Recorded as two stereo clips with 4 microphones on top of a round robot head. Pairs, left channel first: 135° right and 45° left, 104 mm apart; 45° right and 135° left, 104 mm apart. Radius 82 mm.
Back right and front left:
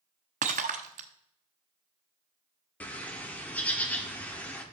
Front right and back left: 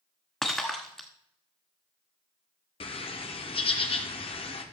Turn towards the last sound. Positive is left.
turn(degrees=-60)